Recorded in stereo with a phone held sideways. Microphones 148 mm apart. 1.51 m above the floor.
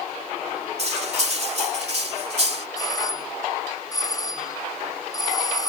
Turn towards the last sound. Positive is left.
turn(degrees=25)  # may be behind; listen again after turning